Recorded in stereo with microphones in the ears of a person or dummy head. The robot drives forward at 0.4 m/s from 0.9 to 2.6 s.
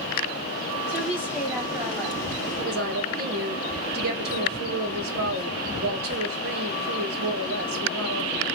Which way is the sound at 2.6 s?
55° right (ahead or behind).